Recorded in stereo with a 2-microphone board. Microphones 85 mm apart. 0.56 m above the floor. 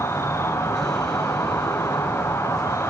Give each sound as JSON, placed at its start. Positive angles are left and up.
{"t": 0.0, "sound": "an insect", "side_deg": 30, "distance_m": 0.9}